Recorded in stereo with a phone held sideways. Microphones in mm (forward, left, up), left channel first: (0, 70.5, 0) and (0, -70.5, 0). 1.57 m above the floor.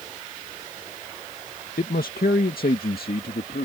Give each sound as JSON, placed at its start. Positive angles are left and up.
{"t": 1.8, "sound": "a man speaking", "side_deg": 85}